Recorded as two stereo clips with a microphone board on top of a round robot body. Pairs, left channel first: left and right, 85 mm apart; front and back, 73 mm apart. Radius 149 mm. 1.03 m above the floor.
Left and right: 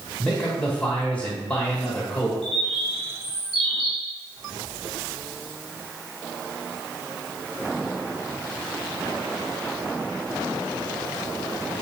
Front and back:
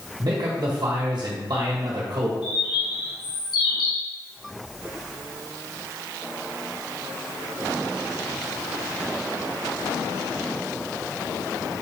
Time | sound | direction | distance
0.2 | a man speaking | 165° left | 1.6 m
2.4 | a bird | 5° left | 2 m